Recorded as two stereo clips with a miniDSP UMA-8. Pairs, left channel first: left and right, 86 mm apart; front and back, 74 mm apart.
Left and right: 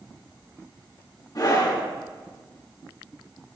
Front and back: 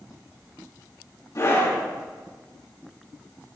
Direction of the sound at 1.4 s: 45° left.